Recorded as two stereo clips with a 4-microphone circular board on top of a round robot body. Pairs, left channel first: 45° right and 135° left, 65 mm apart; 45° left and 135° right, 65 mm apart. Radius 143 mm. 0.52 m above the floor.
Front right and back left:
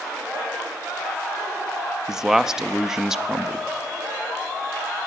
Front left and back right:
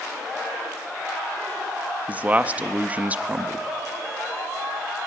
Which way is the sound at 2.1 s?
155° right.